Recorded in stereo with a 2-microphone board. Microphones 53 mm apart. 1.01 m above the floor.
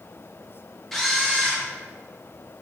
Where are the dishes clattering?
No dishes clattering in this recording.